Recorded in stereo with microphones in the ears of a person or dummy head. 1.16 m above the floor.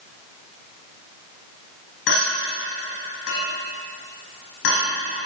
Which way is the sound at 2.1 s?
70° left (ahead or behind).